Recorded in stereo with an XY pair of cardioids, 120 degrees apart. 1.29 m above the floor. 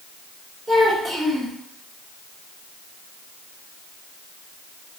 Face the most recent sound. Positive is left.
turn(degrees=-10)